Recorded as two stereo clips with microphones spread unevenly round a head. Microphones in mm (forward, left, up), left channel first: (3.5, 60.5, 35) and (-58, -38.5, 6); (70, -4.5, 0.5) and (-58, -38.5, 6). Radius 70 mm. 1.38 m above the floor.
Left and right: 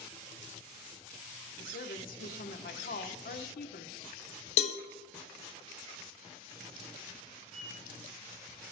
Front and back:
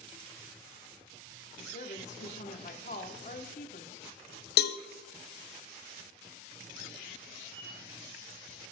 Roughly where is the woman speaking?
Ahead left.